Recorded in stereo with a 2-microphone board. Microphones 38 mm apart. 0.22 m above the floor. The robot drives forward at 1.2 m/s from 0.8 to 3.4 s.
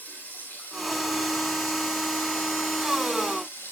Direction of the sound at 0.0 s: 65° left (ahead or behind).